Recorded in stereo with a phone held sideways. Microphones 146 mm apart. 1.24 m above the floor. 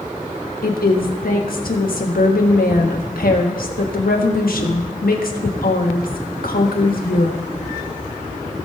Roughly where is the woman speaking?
Left.